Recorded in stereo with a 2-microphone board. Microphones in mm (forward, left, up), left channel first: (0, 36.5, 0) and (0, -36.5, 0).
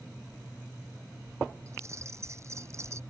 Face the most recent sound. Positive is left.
turn(degrees=-40)  # may be behind; listen again after turning